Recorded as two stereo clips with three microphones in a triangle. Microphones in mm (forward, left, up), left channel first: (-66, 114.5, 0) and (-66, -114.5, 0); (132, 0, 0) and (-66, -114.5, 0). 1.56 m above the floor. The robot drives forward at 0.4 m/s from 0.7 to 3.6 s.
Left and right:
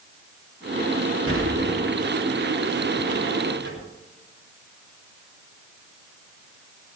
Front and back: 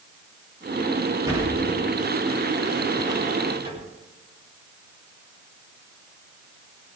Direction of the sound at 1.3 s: 75° right.